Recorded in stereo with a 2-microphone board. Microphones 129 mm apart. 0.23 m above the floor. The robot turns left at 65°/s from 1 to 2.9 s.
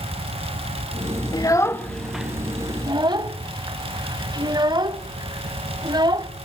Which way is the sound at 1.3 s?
30° left (ahead or behind).